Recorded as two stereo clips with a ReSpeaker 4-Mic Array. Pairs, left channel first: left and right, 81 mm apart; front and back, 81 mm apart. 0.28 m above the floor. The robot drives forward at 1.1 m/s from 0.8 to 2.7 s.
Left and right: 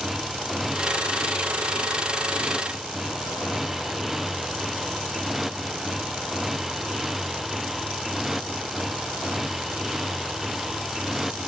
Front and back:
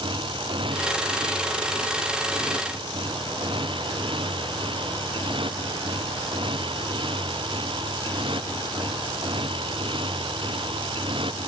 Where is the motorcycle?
175° right.